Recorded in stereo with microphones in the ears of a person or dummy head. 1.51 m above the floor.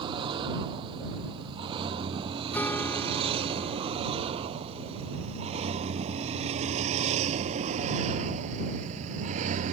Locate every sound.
0.0 s a vehicle: 25° right (ahead or behind); by 9.8 s 45° right (ahead or behind)
2.5 s a guitar: 10° left (ahead or behind)